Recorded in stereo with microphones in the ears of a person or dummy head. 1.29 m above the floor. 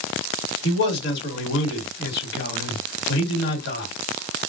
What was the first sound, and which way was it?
A man speaking, 70° left (ahead or behind).